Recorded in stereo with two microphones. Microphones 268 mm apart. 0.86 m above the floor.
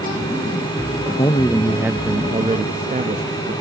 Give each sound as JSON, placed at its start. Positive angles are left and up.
{"t": 1.2, "sound": "a man speaking", "side_deg": 20, "distance_m": 0.9}